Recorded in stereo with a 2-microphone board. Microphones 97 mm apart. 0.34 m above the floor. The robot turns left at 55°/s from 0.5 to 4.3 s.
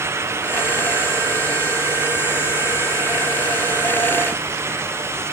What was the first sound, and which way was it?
Only background noise.